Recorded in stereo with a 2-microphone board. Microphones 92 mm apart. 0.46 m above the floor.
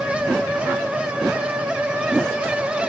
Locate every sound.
Only background noise.